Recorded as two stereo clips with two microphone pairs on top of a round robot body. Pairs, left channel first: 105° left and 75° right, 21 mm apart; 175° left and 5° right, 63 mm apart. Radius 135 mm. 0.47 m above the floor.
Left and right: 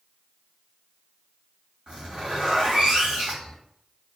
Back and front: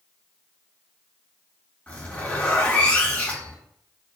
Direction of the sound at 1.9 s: 120° right.